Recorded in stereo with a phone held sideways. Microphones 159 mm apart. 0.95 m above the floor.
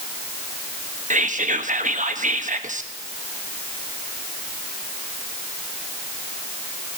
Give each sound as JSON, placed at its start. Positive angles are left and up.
{"t": 1.1, "sound": "whispering", "side_deg": -55, "distance_m": 1.2}